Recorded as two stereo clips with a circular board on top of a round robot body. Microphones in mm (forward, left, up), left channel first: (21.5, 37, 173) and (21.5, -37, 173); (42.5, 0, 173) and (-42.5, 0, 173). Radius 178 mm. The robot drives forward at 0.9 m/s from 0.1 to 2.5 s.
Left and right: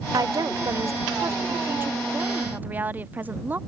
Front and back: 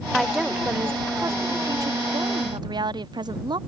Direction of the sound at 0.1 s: 85° right.